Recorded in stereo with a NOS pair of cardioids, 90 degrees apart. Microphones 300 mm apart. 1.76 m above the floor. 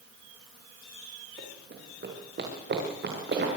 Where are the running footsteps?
35° right, 7 m.